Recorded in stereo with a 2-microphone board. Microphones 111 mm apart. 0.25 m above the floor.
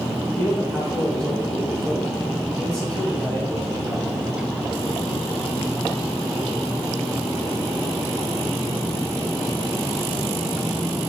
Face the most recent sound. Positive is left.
turn(degrees=10)  # may be behind; listen again after turning